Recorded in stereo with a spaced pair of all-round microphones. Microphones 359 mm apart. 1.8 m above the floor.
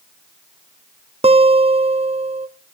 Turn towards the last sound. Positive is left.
turn(degrees=-15)  # may be behind; listen again after turning